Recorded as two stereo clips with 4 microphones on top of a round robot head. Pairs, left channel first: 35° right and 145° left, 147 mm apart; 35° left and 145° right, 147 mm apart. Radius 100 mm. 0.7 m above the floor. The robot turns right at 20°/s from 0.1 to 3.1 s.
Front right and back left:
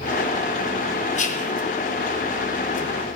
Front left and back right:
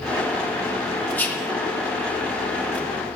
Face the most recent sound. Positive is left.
turn(degrees=0)